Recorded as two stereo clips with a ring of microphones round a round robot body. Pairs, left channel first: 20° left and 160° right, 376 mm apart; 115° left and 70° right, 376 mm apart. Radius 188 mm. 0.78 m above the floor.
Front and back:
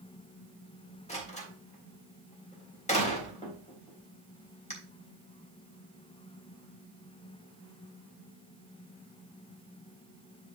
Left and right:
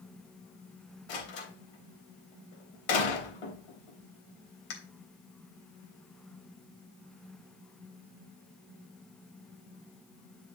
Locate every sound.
1.1 s a door slam: 95° left, 3.5 m